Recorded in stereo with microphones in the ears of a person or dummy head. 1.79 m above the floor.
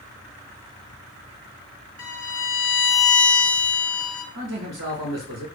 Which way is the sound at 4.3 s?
55° right (ahead or behind).